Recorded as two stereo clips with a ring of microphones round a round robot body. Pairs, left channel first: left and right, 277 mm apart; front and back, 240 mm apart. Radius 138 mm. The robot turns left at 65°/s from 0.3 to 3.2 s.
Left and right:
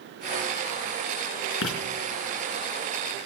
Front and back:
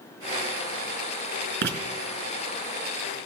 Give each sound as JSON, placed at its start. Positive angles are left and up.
{"t": 1.6, "sound": "writing", "azimuth_deg": 135, "distance_m": 4.5}